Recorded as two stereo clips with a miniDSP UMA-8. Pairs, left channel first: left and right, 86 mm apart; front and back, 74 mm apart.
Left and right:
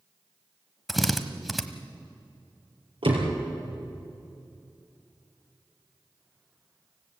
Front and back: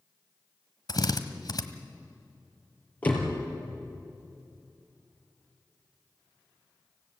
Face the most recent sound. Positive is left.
turn(degrees=-70)